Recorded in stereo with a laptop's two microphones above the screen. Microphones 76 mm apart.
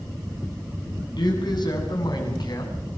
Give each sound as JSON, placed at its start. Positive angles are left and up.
{"t": 1.2, "sound": "a man speaking", "side_deg": 65, "distance_m": 8.5}